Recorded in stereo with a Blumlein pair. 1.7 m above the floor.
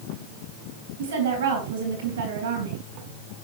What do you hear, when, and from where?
1.0 s a woman speaking: 65° right, 3.5 m